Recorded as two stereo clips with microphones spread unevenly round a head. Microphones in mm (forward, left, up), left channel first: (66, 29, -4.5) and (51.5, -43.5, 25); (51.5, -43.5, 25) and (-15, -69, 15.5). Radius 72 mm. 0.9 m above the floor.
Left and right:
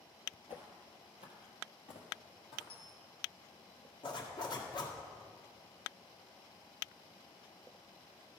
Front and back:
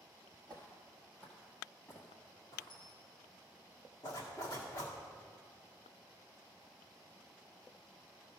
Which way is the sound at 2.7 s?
55° left.